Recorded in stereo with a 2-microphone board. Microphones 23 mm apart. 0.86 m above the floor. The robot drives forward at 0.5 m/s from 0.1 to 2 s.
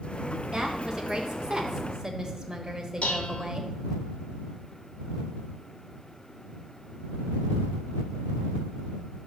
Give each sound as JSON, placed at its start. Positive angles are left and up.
{"t": 0.5, "sound": "a woman speaking", "side_deg": -20, "distance_m": 0.7}
{"t": 3.0, "sound": "dishes clattering", "side_deg": 90, "distance_m": 0.6}